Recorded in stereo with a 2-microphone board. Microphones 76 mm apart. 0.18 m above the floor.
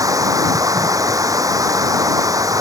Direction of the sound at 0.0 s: 45° right (ahead or behind).